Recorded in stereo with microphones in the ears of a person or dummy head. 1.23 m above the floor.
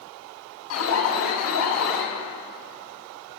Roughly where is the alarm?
Left.